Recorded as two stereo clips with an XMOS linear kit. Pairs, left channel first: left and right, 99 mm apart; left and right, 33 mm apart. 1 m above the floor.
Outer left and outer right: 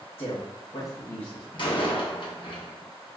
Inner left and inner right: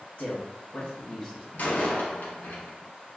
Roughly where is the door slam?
Left.